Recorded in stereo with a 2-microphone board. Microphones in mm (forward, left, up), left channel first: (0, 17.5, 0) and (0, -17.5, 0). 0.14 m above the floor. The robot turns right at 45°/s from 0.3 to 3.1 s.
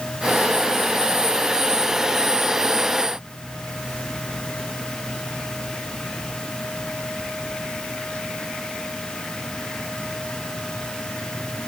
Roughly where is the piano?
I don't hear a piano.